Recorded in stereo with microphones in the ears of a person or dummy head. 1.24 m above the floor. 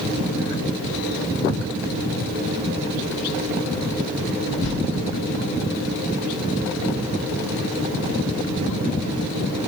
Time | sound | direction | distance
4.6 | a whoosh | 75° left (ahead or behind) | 4 m